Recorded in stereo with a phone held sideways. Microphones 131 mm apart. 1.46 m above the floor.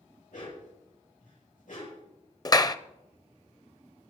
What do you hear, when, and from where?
0.3 s a dog barking: 80° left, 8 m
2.5 s a clap: 30° left (ahead or behind), 0.6 m